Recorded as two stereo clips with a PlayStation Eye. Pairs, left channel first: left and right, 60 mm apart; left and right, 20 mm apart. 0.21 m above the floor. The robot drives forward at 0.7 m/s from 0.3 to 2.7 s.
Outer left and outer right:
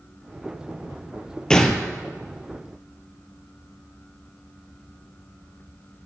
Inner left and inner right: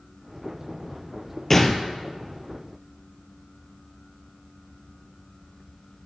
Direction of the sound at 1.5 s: 10° left (ahead or behind).